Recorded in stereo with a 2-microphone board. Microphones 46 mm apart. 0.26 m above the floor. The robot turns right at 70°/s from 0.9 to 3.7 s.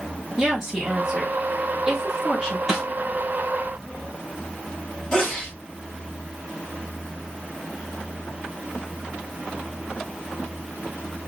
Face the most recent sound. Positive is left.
turn(degrees=15)  # may be behind; listen again after turning